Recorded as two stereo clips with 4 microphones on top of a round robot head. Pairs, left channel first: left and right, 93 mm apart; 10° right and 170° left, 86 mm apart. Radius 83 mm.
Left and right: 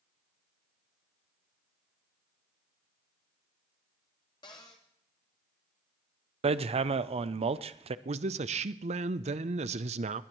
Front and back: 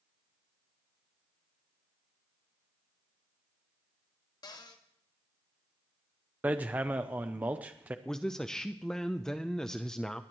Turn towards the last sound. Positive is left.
turn(degrees=-95)